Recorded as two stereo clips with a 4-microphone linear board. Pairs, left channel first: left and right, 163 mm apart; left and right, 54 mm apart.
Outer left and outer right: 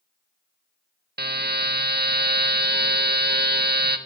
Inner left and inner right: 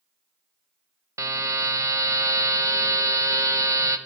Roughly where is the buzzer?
Right.